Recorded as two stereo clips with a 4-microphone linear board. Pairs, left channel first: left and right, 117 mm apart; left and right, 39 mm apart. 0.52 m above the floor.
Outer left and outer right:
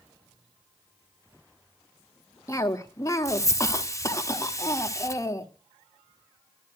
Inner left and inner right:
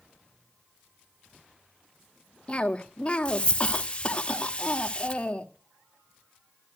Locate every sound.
2.5 s a cough: 25° left (ahead or behind), 1.4 m